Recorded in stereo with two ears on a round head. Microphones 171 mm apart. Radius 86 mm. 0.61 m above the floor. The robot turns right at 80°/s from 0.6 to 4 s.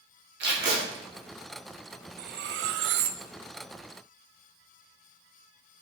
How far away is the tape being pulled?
About 1.9 m.